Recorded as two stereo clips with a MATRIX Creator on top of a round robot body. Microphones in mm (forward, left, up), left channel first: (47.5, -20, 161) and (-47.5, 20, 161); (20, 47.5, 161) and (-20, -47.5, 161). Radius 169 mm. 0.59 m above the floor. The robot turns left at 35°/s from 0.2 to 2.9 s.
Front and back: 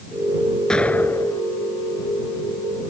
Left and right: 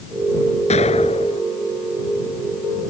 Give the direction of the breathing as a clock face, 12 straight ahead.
No breathing in this recording.